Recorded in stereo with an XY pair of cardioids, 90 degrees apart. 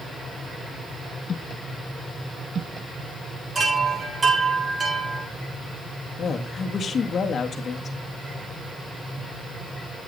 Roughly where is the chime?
Ahead right.